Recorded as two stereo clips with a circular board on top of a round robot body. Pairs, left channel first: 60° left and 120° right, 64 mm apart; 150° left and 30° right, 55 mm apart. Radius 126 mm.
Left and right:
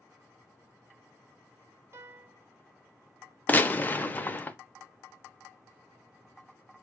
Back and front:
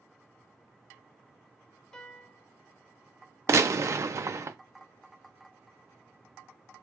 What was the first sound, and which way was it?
A piano, 130° right.